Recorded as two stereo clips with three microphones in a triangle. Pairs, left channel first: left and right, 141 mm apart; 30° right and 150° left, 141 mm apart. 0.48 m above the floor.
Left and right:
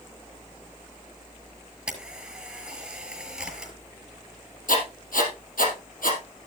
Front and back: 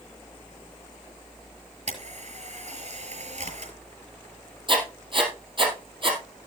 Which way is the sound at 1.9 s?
175° right.